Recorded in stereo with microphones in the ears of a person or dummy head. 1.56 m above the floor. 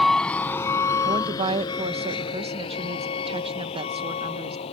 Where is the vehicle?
Centre (ahead or behind); by 4.7 s 35° left (ahead or behind).